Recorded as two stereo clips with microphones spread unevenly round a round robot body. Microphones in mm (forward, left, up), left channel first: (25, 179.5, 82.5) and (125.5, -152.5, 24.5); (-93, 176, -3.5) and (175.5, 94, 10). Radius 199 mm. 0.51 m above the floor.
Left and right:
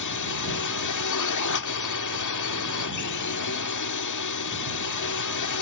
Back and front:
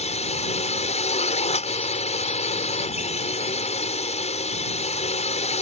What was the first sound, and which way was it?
A drone, 110° left.